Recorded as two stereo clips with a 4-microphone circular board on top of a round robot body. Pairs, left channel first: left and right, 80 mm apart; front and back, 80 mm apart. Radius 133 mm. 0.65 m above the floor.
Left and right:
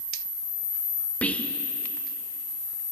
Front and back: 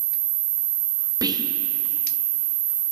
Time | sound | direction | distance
1.2 | whispering | 160° left | 0.8 m